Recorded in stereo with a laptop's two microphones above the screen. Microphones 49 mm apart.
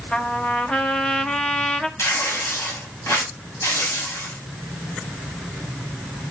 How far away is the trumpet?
About 1.2 m.